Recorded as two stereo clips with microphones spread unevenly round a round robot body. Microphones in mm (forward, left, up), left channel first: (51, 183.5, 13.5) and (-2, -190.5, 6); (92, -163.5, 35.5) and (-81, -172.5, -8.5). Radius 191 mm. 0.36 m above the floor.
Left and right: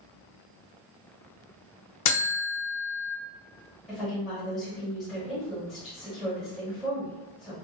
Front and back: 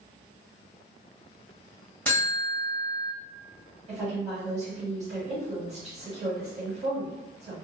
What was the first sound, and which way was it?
A buzzer, 100° left.